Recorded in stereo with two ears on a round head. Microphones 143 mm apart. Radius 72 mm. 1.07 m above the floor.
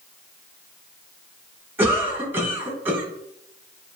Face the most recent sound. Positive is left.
turn(degrees=-15)  # may be behind; listen again after turning